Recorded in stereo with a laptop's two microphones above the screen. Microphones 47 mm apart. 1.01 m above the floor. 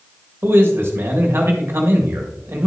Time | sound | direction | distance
0.4 | a man speaking | 60° right (ahead or behind) | 1.8 m